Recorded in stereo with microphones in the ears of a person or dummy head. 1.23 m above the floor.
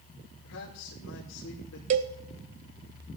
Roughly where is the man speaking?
Left.